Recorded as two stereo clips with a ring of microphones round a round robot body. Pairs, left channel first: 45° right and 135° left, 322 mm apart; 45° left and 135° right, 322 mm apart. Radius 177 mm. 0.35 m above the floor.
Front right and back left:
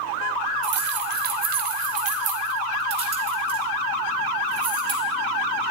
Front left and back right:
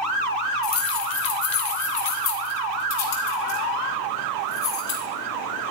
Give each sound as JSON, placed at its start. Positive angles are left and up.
{"t": 0.6, "sound": "keys jangling", "azimuth_deg": 85, "distance_m": 1.4}